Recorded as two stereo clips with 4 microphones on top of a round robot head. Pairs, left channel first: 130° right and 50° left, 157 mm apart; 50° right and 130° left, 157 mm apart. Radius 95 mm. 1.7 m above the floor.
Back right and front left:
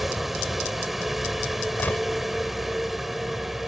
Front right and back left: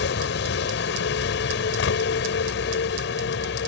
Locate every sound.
0.0 s a vehicle: 40° right
1.8 s a gunshot: 50° right